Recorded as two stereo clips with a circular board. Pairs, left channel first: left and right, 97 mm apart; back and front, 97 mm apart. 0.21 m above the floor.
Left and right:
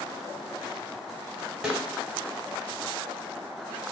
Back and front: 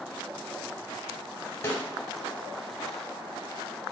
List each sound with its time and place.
1.6 s a snare drum: 160° right, 0.8 m